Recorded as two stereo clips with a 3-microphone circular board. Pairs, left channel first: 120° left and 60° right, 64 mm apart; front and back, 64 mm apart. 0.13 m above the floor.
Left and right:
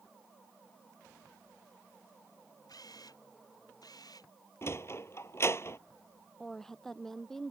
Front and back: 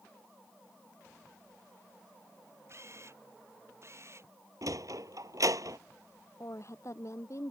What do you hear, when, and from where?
2.7 s a camera shutter: 135° left
4.6 s a sliding door: 160° left
6.4 s a woman speaking: 35° left